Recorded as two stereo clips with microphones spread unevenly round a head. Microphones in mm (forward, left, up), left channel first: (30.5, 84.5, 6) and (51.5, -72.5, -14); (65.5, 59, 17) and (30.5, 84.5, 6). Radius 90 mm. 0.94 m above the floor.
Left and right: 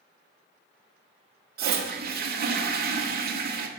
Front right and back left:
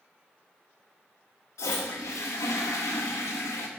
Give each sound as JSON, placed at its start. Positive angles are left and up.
{"t": 1.6, "sound": "a toilet flushing", "azimuth_deg": -55, "distance_m": 1.4}